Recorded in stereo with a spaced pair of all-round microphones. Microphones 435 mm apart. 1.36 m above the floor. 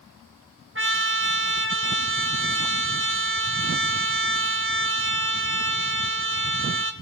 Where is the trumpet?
30° right (ahead or behind), 1.3 m.